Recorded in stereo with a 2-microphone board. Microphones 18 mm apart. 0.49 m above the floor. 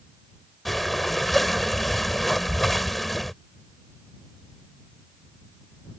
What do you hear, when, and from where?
0.7 s breathing: 10° left (ahead or behind)